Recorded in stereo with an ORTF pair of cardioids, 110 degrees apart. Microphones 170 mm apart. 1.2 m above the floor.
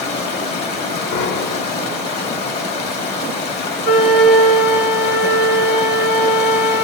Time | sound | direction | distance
0.0 | running water | 70° left | 1.9 m
1.1 | a piano | 65° left | 0.7 m
3.8 | a flute | 65° left | 2.5 m